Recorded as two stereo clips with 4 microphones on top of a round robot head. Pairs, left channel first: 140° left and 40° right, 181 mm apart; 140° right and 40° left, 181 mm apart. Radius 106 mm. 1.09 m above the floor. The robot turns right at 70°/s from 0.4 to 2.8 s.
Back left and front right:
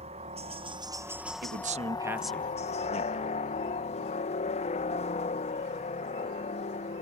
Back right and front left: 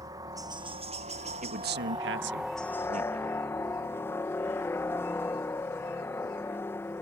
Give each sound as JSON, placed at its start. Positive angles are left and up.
{"t": 0.0, "sound": "a helicopter", "azimuth_deg": -20}
{"t": 1.4, "sound": "a man speaking", "azimuth_deg": -10}